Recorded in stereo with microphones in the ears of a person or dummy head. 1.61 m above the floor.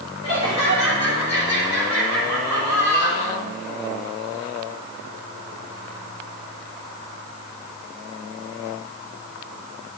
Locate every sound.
0.2 s laughter: 35° left (ahead or behind), 6.5 m